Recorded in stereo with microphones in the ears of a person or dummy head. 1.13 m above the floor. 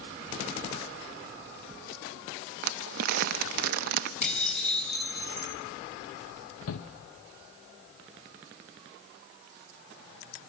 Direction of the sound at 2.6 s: 55° right (ahead or behind).